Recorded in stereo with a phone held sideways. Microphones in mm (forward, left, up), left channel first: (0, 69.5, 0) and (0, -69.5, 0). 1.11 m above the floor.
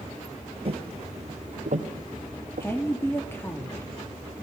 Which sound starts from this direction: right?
Footsteps, at 0.7 s.